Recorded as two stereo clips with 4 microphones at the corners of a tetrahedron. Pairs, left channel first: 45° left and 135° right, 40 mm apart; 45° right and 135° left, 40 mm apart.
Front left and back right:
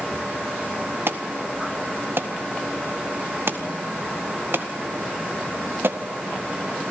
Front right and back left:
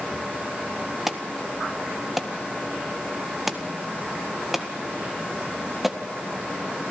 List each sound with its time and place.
1.1 s an alarm: 140° right, 1.7 m